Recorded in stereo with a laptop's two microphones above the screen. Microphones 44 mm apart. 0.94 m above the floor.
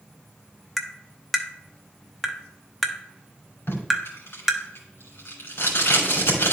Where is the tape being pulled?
75° left (ahead or behind), 2.5 m.